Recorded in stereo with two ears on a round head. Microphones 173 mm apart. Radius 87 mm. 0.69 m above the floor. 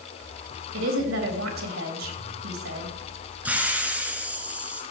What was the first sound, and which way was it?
A woman speaking, 75° right (ahead or behind).